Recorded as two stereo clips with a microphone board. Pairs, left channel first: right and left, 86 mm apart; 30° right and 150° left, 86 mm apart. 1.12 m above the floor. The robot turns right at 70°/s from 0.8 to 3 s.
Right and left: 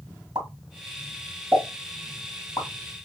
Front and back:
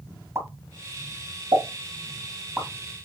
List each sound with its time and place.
0.3 s a pop: 100° left, 2 m; by 3.1 s 105° right, 2 m